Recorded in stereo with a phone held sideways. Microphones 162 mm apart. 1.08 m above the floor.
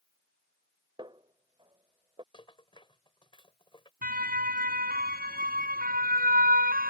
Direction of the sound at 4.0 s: 65° right (ahead or behind).